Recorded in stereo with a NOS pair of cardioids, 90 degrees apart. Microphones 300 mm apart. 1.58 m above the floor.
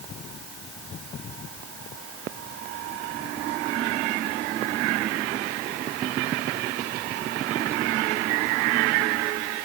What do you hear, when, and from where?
Only background noise.